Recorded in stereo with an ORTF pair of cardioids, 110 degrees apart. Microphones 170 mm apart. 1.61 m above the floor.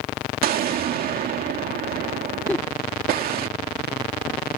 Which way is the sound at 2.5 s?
10° left.